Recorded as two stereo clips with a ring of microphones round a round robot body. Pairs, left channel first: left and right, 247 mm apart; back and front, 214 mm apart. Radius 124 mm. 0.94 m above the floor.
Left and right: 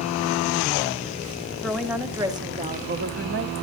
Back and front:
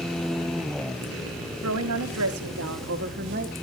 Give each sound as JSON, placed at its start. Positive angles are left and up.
{"t": 1.6, "sound": "a woman speaking", "azimuth_deg": 0, "distance_m": 1.9}